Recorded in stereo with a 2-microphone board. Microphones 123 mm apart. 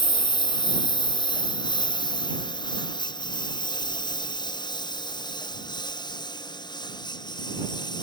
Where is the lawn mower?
35° left (ahead or behind).